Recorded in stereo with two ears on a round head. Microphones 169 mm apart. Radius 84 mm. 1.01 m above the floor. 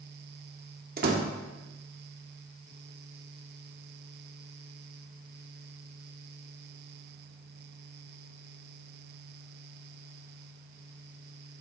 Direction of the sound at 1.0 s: 55° right (ahead or behind).